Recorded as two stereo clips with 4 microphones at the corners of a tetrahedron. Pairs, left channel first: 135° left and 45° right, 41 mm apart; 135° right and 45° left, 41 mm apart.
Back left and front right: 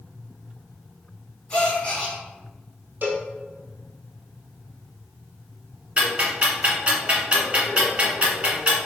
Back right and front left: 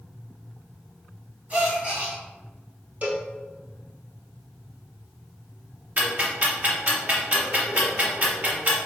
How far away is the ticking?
About 1.2 m.